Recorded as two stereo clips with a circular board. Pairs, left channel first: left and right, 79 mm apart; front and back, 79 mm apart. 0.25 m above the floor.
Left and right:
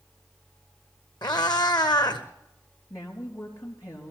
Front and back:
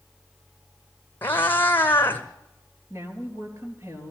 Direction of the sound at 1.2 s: 65° left.